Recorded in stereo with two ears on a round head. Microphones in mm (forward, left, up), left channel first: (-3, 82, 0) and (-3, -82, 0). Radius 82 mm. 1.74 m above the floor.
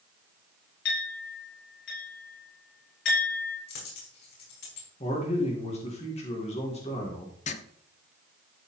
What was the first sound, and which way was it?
A clink, 65° left (ahead or behind).